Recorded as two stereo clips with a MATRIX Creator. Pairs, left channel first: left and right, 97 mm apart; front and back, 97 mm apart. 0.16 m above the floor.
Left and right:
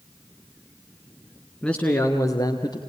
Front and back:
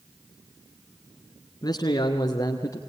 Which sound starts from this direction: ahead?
A man speaking, at 1.6 s.